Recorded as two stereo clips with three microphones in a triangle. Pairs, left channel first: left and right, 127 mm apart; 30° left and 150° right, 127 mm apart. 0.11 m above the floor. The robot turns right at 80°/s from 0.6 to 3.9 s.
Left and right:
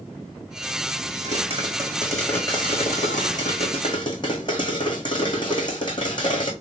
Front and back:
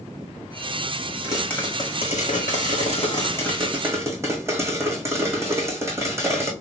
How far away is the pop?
About 1.9 m.